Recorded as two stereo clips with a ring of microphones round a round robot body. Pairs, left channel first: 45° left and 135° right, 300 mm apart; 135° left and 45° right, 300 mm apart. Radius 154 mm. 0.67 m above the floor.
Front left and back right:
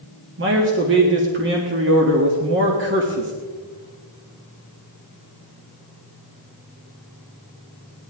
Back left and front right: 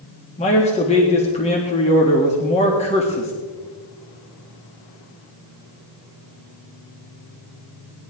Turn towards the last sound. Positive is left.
turn(degrees=-165)